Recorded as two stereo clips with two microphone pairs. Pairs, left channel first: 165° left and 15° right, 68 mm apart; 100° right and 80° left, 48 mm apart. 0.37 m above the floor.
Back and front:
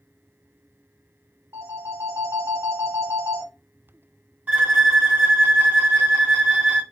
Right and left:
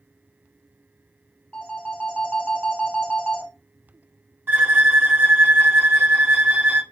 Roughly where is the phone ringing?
Ahead right.